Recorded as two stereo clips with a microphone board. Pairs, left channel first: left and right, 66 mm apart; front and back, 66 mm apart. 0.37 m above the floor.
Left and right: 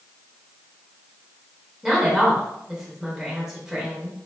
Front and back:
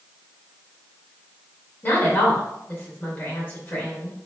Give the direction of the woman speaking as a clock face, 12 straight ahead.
12 o'clock.